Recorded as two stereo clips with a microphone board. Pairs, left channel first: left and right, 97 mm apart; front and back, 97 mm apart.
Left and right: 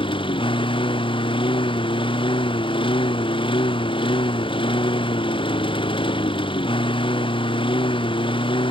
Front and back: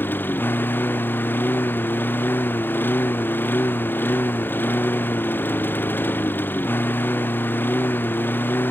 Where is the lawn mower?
70° left.